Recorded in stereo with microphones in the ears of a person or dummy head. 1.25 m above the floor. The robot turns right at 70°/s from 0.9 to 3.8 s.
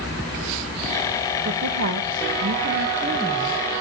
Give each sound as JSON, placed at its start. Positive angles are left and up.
{"t": 1.4, "sound": "a woman speaking", "azimuth_deg": -140, "distance_m": 1.2}